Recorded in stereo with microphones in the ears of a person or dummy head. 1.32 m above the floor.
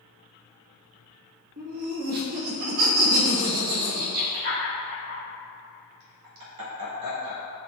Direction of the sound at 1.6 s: 50° right (ahead or behind).